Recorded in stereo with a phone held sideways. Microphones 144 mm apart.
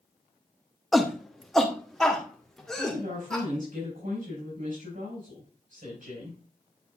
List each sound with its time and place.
0.9 s a shout: centre (ahead or behind), 0.9 m; by 3.5 s 5° left (ahead or behind), 2.5 m
2.8 s a woman speaking: 75° right (ahead or behind), 5.5 m